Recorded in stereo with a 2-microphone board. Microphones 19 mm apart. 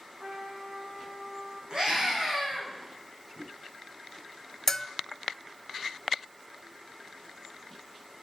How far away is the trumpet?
About 8.5 m.